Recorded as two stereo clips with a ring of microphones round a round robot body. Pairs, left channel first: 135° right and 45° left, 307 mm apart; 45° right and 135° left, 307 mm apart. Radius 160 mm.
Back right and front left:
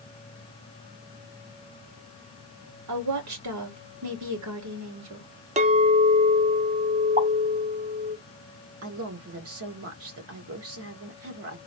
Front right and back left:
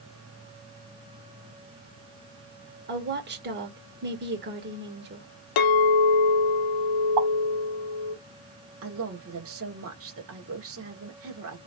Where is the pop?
115° left, 1.8 m.